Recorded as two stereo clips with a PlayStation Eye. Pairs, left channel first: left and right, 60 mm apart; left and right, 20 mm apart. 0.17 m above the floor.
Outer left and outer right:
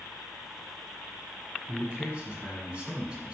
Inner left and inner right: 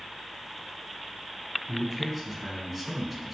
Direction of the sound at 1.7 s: 20° right (ahead or behind).